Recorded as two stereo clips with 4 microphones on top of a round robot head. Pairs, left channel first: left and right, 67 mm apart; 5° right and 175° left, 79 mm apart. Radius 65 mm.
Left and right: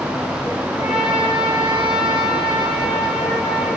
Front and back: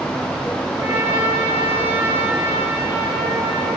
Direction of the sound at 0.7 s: 105° left.